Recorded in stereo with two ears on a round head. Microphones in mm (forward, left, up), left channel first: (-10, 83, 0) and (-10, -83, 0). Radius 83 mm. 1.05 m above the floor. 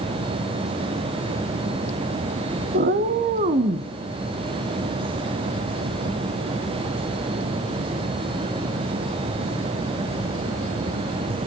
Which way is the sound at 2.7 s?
50° right (ahead or behind).